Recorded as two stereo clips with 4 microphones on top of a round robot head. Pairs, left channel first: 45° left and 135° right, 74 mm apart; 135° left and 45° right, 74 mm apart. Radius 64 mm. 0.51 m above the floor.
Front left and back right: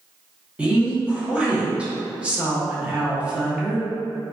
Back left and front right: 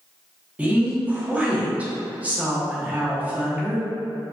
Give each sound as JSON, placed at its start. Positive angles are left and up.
{"t": 0.6, "sound": "a woman speaking", "azimuth_deg": -80, "distance_m": 0.9}